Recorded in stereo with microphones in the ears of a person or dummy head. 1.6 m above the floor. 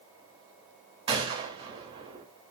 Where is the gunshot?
30° right (ahead or behind), 3 m.